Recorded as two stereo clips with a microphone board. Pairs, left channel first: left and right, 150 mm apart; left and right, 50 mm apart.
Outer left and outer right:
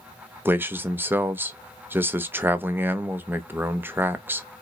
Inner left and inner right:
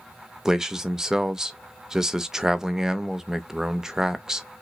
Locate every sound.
0.5 s a man speaking: 15° right (ahead or behind), 0.5 m